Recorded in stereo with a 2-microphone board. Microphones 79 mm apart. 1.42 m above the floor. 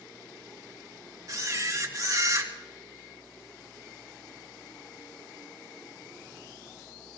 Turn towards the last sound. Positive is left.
turn(degrees=-45)  # may be behind; listen again after turning